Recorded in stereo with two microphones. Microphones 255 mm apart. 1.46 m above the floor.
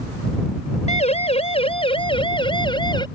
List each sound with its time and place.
0.9 s a siren: 25° left (ahead or behind); by 3.0 s 15° left (ahead or behind)